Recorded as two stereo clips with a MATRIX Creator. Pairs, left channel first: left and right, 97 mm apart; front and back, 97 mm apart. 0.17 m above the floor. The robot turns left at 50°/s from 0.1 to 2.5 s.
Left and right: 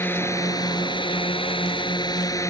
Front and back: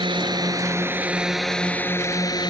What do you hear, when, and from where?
0.0 s a drone: 155° left; by 2.5 s 35° left